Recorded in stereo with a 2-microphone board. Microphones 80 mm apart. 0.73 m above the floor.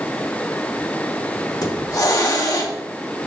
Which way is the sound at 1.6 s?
45° left (ahead or behind).